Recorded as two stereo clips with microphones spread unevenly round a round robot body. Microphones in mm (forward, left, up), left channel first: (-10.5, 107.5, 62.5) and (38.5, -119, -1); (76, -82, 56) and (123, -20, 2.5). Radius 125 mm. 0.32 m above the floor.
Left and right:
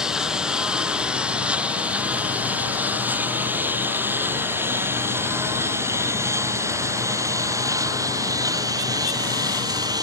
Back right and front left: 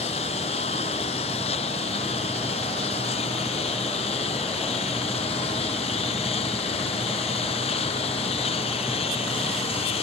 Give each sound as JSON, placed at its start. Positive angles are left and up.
{"t": 0.0, "sound": "a lawn mower", "azimuth_deg": -165}